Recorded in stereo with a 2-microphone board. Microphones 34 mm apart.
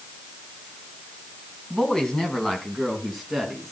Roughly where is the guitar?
No guitar in this recording.